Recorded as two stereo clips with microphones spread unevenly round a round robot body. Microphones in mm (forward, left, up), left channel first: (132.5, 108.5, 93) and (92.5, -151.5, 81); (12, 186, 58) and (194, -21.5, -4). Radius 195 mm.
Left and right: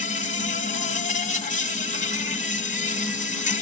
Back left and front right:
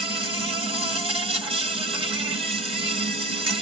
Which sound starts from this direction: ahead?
An insect, at 0.0 s.